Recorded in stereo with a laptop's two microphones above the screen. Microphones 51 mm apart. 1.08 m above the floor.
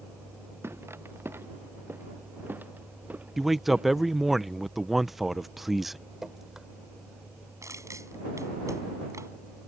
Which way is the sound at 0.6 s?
55° right (ahead or behind).